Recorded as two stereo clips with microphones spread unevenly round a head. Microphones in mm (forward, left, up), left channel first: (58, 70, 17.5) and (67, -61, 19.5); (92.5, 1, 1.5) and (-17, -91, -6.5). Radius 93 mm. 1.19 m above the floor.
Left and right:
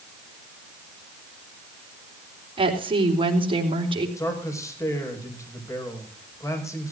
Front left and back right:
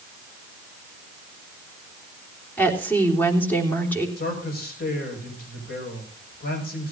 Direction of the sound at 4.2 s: 25° left.